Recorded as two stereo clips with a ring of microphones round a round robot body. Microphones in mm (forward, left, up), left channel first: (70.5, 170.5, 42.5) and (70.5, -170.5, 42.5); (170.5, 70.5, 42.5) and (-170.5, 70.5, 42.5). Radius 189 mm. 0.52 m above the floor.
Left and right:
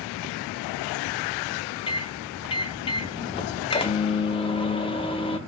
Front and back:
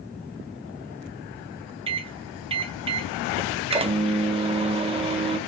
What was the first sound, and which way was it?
A microwave, 135° left.